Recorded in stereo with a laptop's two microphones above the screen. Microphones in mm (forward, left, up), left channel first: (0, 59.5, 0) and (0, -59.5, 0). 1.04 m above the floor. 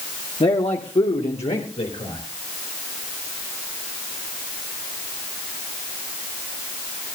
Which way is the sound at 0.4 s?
55° left (ahead or behind).